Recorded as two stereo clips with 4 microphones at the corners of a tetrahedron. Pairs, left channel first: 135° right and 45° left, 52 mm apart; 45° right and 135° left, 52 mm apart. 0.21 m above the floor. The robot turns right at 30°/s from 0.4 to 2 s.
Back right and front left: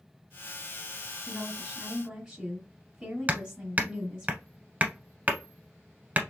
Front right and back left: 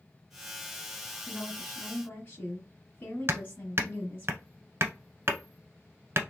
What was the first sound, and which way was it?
A woman speaking, 35° right.